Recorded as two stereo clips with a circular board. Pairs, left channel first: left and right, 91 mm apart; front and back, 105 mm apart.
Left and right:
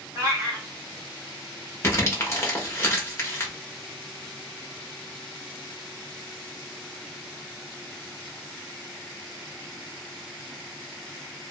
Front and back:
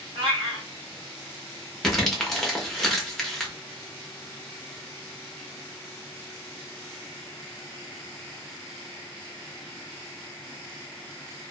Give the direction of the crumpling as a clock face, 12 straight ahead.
9 o'clock.